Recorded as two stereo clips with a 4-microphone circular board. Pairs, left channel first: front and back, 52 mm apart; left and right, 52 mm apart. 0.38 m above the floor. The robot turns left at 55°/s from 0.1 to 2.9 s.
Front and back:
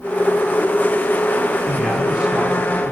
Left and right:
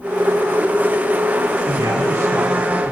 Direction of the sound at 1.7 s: 80° right.